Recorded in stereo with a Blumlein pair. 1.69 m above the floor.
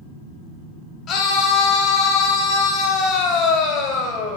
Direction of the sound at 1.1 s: 30° left.